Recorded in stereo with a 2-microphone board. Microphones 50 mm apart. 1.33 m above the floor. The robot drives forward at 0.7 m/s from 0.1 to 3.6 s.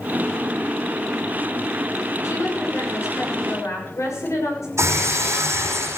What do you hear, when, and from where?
2.2 s a woman speaking: 80° left, 6.5 m; by 4.7 s 85° left, 6.5 m
4.8 s breaking glass: 70° right (ahead or behind), 5 m